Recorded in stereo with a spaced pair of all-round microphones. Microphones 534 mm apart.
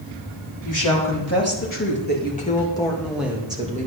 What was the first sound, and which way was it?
A woman speaking, 35° left (ahead or behind).